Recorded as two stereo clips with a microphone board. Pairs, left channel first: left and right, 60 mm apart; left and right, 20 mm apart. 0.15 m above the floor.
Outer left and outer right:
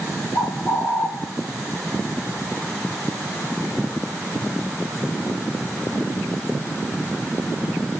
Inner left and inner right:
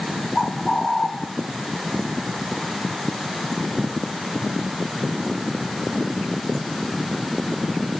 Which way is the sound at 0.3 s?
55° left (ahead or behind).